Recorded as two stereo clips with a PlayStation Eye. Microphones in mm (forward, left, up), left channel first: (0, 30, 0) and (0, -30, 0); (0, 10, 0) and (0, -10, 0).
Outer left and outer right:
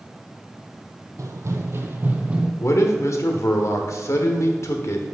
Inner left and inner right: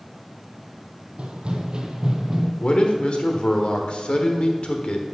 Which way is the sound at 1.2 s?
60° right (ahead or behind).